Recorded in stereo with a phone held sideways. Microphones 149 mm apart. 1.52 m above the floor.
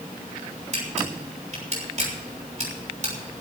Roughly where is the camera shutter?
Right.